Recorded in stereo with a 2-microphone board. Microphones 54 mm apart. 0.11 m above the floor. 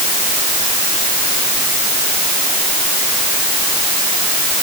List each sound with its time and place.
Only background noise.